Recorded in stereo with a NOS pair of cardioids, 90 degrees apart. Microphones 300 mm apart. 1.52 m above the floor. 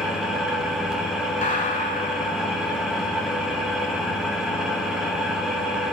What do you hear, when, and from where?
0.0 s an engine running: straight ahead, 3 m
1.4 s a gunshot: 25° left, 6.5 m